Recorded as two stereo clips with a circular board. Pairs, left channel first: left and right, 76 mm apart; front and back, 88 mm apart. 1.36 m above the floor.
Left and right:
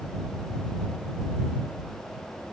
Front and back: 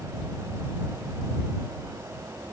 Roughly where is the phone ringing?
I don't hear a phone ringing.